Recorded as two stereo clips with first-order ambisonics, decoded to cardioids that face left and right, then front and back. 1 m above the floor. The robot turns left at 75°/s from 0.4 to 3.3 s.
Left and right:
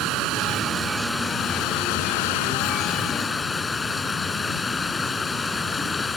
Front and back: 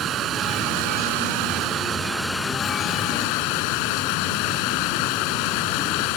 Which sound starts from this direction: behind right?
Running water, at 0.0 s.